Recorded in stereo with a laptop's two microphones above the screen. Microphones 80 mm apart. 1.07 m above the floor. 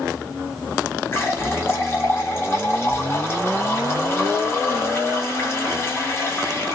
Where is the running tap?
30° left (ahead or behind), 0.8 m.